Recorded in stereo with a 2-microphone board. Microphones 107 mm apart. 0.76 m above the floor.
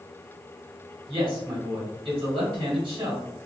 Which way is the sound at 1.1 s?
55° right (ahead or behind).